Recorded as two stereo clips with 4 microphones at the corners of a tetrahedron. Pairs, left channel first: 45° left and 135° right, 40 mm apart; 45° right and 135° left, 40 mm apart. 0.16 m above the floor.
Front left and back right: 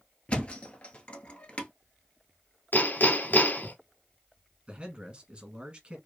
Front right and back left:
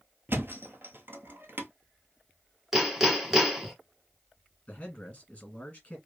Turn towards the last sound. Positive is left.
turn(degrees=-95)